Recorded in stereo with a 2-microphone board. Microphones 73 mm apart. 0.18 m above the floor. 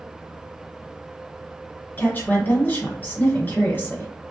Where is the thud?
No thud in this recording.